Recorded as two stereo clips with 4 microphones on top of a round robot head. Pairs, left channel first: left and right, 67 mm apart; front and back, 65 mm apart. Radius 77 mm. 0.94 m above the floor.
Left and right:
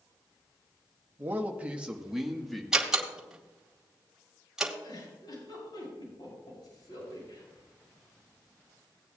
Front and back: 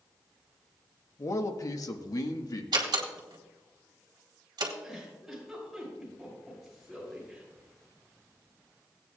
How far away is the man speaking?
About 1.1 m.